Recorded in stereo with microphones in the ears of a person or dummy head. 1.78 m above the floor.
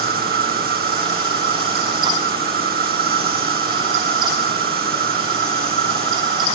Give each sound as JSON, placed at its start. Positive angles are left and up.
{"t": 0.0, "sound": "an insect", "side_deg": -55}